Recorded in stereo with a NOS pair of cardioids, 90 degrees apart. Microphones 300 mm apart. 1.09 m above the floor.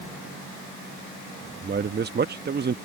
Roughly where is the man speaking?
Ahead right.